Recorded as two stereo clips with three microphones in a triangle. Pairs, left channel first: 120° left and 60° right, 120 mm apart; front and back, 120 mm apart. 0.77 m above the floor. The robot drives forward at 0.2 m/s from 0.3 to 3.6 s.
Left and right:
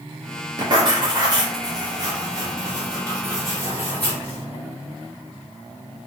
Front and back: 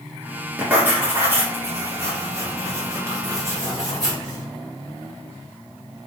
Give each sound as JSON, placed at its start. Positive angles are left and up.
{"t": 0.6, "sound": "writing", "azimuth_deg": -105, "distance_m": 1.9}